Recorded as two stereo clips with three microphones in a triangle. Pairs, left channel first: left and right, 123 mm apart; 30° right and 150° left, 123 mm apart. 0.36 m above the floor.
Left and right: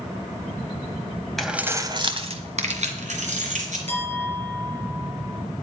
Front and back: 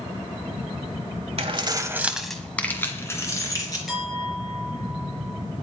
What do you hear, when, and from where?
1.4 s keys jangling: 175° left, 1.3 m; by 3.8 s 90° right, 3.5 m
3.9 s a clink: 120° right, 5.5 m